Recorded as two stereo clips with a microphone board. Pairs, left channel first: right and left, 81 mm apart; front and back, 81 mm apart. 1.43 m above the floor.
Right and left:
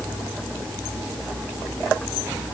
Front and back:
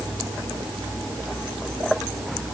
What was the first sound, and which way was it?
Only background noise.